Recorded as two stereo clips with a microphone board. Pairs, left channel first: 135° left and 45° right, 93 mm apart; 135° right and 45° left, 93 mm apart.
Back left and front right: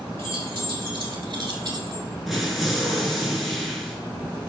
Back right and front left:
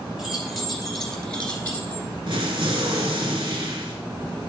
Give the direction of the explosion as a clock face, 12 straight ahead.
11 o'clock.